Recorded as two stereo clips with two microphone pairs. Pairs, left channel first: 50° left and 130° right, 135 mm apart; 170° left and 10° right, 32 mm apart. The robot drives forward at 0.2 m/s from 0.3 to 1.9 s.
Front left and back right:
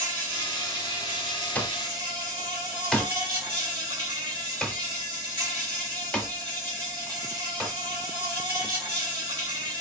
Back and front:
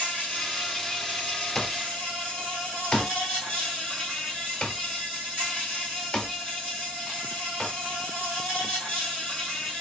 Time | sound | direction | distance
0.0 | an insect | 170° right | 1.9 m
1.6 | an alarm clock | 130° left | 0.6 m